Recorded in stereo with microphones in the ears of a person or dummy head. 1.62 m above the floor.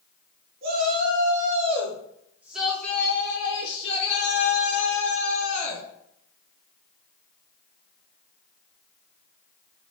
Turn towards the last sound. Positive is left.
turn(degrees=55)  # may be behind; listen again after turning